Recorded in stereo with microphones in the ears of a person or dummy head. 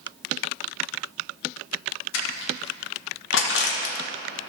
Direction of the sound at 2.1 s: 75° left (ahead or behind).